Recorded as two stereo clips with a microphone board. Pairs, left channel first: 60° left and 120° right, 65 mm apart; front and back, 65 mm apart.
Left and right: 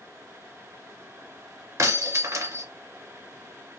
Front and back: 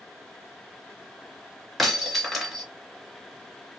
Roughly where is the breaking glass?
Right.